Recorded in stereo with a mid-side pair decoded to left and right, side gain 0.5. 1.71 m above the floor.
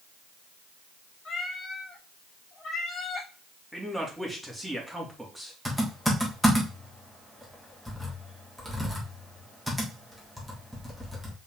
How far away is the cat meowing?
About 3 m.